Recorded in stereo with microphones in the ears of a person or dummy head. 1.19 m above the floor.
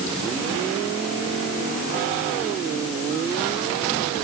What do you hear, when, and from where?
Only background noise.